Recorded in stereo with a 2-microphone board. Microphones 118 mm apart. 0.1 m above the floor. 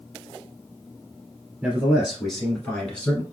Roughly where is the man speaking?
Centre.